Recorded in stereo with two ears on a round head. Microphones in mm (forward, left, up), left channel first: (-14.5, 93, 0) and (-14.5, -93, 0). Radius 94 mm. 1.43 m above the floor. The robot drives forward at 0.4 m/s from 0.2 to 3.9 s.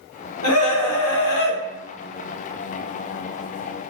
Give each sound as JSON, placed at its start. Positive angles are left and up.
{"t": 0.4, "sound": "a scream", "side_deg": 80, "distance_m": 1.0}